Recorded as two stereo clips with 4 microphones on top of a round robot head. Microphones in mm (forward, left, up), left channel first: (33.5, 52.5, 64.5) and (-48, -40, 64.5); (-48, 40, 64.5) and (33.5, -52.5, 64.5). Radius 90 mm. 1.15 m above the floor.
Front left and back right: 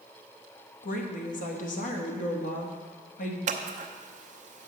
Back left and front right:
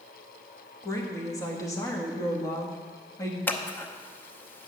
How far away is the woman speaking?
About 1.5 m.